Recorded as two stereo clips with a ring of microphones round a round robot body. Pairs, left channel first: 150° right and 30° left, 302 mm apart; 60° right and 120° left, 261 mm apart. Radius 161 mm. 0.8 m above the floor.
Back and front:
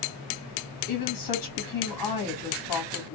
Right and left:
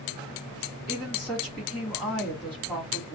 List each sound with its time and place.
0.9 s a woman speaking: 145° right, 1.9 m